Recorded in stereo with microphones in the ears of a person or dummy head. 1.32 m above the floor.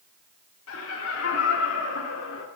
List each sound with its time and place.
0.7 s laughter: 80° left, 5 m; by 2.5 s 70° left (ahead or behind), 4 m